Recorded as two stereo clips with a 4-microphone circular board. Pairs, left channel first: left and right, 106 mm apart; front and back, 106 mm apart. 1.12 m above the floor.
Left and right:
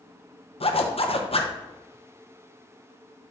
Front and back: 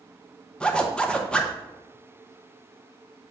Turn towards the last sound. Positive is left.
turn(degrees=80)